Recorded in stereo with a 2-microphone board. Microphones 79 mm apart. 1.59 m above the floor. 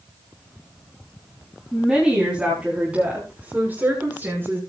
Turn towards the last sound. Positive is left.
turn(degrees=-30)  # may be behind; listen again after turning